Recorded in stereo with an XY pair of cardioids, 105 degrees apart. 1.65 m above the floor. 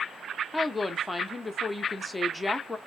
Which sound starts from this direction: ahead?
A woman speaking, at 0.5 s.